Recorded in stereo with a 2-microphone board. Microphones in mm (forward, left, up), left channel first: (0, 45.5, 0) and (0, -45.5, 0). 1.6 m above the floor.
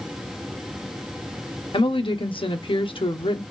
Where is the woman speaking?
70° left (ahead or behind), 1.1 m.